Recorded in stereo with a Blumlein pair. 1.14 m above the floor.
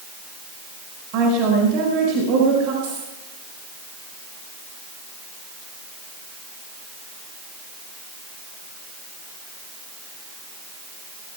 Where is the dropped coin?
55° right, 9 m.